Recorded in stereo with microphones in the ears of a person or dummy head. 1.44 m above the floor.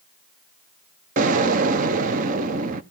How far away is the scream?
No scream in this recording.